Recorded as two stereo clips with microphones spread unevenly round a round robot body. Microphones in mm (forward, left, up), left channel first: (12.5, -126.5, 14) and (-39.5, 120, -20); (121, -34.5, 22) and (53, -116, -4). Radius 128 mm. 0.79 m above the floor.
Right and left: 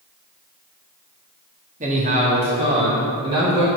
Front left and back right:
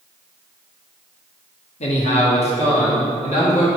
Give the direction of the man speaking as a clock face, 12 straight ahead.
10 o'clock.